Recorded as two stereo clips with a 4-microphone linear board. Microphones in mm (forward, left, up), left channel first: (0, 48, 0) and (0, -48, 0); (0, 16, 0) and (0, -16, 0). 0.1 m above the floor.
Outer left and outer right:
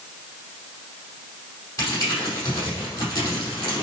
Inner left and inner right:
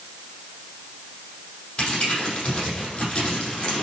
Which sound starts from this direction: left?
Crumpling, at 1.8 s.